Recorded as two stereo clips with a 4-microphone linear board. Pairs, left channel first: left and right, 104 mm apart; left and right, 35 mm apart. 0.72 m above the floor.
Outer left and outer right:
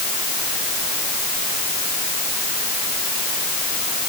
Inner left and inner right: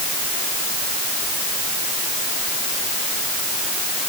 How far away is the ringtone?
I don't hear a ringtone.